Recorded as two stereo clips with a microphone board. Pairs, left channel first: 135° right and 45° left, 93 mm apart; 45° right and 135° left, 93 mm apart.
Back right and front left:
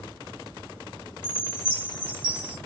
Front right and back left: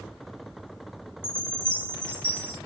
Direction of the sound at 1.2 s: 35° right.